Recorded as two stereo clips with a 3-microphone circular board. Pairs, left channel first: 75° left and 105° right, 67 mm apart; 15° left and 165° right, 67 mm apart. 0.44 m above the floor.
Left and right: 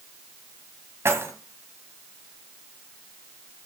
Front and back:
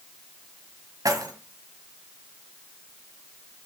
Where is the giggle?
No giggle in this recording.